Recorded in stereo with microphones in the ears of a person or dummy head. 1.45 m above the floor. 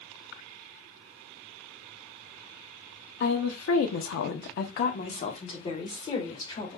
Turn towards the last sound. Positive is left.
turn(degrees=25)  # may be behind; listen again after turning